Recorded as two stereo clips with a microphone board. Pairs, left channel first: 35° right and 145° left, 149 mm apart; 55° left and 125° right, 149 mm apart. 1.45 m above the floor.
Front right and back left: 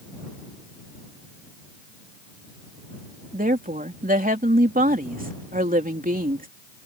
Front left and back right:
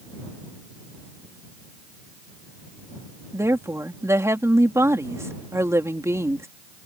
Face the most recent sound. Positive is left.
turn(degrees=165)